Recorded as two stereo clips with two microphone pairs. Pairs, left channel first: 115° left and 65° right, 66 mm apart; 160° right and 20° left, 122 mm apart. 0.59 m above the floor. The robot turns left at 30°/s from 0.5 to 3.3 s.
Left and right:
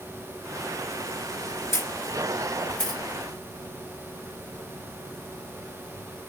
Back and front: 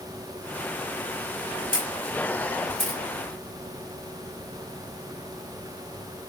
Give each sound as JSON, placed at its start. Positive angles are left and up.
{"t": 1.7, "sound": "a camera shutter", "azimuth_deg": 70, "distance_m": 5.0}